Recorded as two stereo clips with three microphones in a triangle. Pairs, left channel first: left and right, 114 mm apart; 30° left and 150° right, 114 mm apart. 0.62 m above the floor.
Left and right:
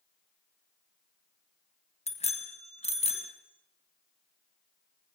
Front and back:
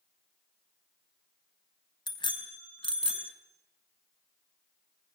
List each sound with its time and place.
2.1 s a bicycle bell: 75° left, 3 m; by 3.3 s 65° left, 4 m